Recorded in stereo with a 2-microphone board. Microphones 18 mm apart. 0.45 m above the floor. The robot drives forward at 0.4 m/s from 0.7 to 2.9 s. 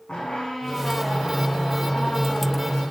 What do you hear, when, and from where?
0.1 s a squeak: 75° left (ahead or behind), 6 m; by 2.8 s 65° left (ahead or behind), 6 m